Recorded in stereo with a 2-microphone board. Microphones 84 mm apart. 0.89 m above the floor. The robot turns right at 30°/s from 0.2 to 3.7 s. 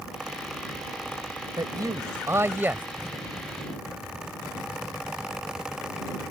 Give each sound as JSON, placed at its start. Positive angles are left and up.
{"t": 1.6, "sound": "a man speaking", "azimuth_deg": -60}